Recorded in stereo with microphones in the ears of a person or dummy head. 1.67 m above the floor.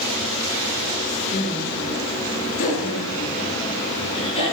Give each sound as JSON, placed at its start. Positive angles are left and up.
{"t": 1.3, "sound": "laughter", "side_deg": 55, "distance_m": 2.5}